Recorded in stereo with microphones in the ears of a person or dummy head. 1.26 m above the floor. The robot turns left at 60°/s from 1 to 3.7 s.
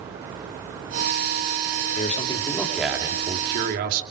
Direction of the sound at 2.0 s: 50° left.